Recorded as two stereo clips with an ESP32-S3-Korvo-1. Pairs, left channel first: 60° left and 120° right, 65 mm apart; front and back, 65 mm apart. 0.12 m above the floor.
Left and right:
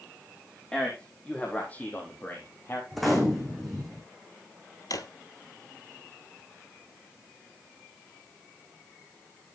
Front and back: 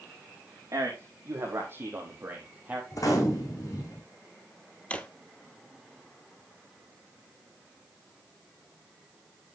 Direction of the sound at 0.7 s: 135° left.